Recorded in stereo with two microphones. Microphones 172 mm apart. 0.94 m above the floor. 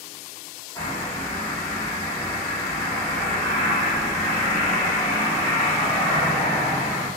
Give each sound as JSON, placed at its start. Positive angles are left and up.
{"t": 0.8, "sound": "a bird", "side_deg": 20, "distance_m": 1.5}